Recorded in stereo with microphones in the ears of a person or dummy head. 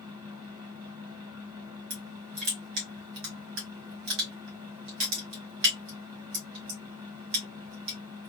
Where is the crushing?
60° right (ahead or behind), 1.3 m.